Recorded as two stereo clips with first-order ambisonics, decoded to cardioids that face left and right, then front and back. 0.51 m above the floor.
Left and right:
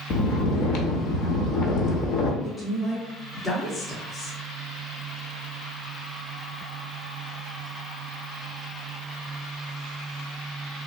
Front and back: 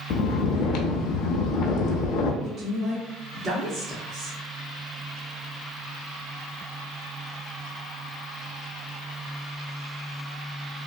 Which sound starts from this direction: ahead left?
Snoring, at 0.1 s.